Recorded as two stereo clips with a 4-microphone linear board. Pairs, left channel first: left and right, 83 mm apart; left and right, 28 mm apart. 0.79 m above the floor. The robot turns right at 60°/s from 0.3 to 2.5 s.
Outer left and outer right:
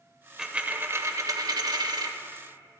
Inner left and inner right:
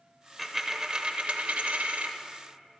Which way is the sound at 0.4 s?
170° right.